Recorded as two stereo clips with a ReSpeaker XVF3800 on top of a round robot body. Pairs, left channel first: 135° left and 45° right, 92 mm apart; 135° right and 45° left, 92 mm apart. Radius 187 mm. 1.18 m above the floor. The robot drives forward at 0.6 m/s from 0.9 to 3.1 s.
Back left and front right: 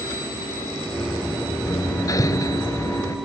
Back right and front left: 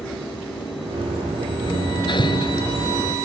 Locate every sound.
1.7 s hammering: 170° right